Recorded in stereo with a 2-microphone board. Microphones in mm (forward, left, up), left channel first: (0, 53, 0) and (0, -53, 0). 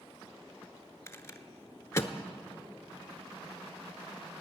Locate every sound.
1.1 s a rattle: 25° left (ahead or behind), 0.7 m